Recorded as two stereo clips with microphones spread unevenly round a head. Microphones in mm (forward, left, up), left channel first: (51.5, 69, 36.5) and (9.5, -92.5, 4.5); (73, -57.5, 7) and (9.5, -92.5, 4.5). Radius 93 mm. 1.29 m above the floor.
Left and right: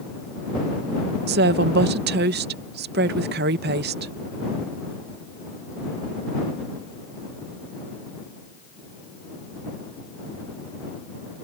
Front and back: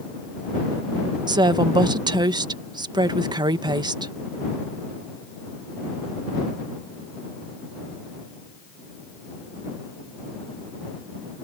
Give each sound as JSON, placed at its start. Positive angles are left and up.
{"t": 1.3, "sound": "a woman speaking", "azimuth_deg": -135}